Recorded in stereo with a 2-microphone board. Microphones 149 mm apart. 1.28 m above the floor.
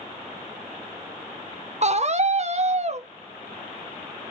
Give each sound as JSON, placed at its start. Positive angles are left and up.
{"t": 1.8, "sound": "a scream", "side_deg": -50, "distance_m": 0.6}